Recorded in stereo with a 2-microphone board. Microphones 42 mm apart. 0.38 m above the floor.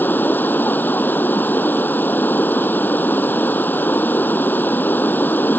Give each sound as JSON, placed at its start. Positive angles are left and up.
{"t": 0.0, "sound": "running water", "side_deg": 50}